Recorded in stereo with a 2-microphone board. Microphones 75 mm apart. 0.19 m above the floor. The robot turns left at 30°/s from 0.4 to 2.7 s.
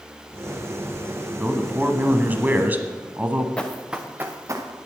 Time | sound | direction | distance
1.4 | a man speaking | 20° right (ahead or behind) | 1.0 m
3.6 | running footsteps | 15° left (ahead or behind) | 1.4 m